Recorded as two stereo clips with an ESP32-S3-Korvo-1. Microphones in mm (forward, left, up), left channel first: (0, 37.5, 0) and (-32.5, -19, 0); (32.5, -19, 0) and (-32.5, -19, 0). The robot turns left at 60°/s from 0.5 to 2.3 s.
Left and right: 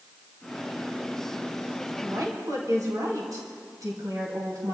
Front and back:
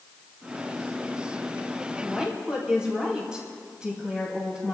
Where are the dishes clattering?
I don't hear dishes clattering.